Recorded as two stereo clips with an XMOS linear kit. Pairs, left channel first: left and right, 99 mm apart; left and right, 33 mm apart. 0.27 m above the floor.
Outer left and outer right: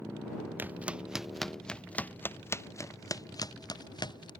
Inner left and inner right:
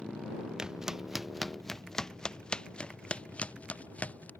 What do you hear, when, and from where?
0.6 s footsteps: 20° right (ahead or behind); by 4.3 s 50° left (ahead or behind)